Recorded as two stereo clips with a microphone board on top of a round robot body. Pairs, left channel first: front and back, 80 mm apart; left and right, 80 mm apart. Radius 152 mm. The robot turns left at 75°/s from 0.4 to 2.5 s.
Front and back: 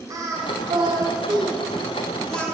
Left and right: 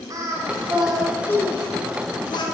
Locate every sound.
0.1 s singing: 135° right, 2.0 m; by 2.5 s 70° left, 2.0 m